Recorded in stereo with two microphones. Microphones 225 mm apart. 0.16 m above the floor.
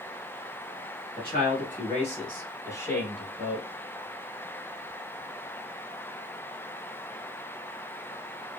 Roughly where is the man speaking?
Left.